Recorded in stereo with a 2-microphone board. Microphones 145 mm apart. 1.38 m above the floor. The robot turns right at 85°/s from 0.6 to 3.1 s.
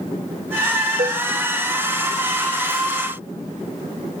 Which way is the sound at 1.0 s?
65° right (ahead or behind).